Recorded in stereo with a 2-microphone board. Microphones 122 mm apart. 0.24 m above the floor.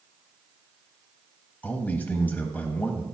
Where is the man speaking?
15° left (ahead or behind), 1.1 m.